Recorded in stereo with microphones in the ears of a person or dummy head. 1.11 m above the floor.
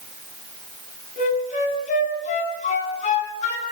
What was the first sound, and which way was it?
A flute, 45° left (ahead or behind).